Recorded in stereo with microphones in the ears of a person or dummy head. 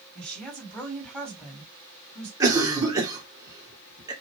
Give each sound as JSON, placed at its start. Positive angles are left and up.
{"t": 0.1, "sound": "a woman speaking", "side_deg": 5, "distance_m": 2.0}
{"t": 2.4, "sound": "a cough", "side_deg": -15, "distance_m": 1.6}